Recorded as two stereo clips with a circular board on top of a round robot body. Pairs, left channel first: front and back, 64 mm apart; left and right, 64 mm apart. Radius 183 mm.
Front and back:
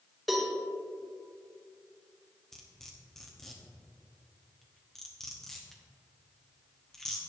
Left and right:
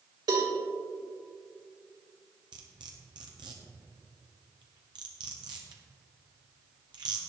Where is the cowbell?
90° right, 2.5 m.